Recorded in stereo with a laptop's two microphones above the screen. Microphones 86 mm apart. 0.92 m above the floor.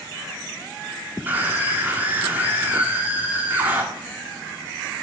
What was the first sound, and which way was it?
A scream, 25° right (ahead or behind).